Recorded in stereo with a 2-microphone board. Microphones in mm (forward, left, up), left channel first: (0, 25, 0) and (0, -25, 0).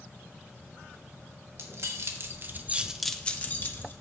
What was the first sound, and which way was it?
Keys jangling, 65° right (ahead or behind).